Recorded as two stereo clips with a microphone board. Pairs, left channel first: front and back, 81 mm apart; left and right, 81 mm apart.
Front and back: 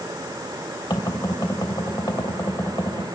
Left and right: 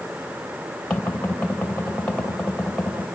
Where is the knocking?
15° left, 3 m.